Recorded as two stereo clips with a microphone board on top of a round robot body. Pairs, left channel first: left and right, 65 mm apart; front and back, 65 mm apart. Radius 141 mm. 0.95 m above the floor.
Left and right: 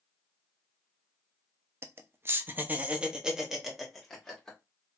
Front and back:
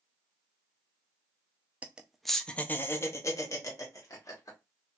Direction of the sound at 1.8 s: 120° right.